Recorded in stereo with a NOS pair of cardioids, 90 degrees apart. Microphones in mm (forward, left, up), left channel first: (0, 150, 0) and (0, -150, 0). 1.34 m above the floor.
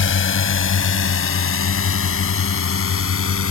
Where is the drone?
45° left; by 3.5 s 50° left.